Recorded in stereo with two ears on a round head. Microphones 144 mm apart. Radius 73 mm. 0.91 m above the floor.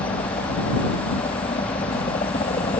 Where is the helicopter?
35° left (ahead or behind).